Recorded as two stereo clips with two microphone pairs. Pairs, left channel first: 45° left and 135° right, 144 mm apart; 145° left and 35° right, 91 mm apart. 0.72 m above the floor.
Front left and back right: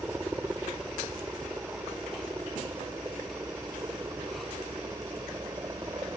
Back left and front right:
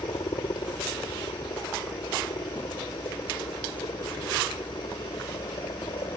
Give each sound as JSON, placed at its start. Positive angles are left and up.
{"t": 0.0, "sound": "a helicopter", "azimuth_deg": 150}